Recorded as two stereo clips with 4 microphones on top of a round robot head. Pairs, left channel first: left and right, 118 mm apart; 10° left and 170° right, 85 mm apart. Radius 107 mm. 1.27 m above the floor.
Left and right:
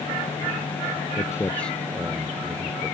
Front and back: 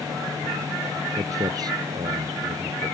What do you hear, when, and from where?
1.2 s footsteps: 150° left; by 2.9 s 150° right